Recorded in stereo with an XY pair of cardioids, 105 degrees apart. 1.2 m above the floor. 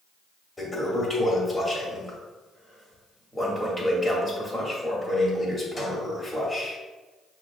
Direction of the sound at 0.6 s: 15° left.